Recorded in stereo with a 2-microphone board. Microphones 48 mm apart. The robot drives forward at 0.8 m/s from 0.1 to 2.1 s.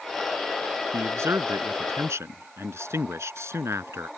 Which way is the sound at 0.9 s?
75° right (ahead or behind).